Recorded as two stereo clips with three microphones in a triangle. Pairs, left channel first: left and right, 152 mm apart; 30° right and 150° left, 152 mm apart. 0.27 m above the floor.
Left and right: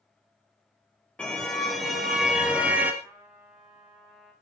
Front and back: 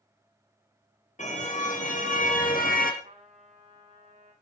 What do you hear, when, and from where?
1.2 s a car horn: 5° left, 4 m; by 2.9 s 10° right, 3.5 m
3.0 s a trumpet: 170° right, 7.5 m